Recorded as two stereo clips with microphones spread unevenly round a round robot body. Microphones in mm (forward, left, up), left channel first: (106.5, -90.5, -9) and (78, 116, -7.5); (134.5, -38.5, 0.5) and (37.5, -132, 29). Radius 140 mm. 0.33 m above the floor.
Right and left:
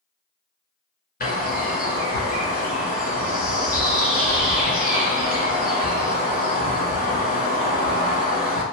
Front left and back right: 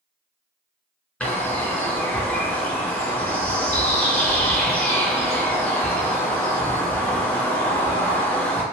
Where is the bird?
35° right, 2.0 m.